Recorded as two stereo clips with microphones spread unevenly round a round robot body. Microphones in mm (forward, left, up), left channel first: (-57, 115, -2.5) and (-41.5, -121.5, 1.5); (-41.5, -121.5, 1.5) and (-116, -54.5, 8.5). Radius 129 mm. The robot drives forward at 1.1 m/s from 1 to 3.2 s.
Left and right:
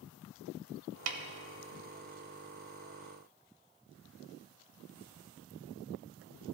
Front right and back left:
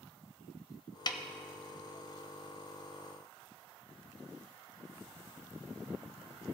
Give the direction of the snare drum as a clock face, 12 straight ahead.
3 o'clock.